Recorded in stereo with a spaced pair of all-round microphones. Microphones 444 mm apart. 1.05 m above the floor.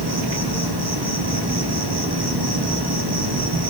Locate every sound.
0.0 s an insect: 55° right (ahead or behind), 1.6 m